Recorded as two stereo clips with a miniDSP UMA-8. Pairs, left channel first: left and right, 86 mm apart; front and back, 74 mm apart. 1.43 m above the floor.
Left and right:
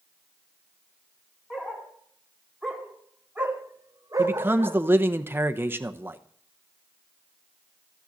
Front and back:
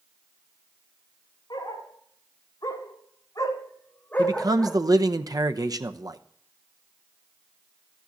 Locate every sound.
1.5 s a dog barking: 10° left, 3 m; by 4.8 s 90° right, 1.3 m
4.2 s a man speaking: 155° right, 0.8 m